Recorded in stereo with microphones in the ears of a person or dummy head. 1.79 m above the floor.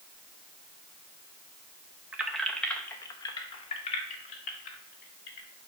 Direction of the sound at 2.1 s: 10° right (ahead or behind).